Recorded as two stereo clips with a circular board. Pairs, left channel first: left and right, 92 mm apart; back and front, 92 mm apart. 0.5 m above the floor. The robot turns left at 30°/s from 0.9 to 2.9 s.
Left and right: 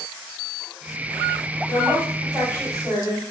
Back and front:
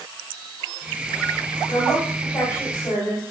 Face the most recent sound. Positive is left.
turn(degrees=-175)